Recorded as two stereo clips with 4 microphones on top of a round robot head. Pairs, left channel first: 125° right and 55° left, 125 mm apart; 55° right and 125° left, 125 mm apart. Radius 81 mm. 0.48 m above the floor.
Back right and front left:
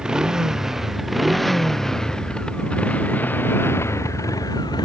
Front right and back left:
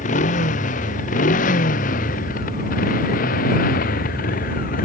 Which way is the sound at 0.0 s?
30° right.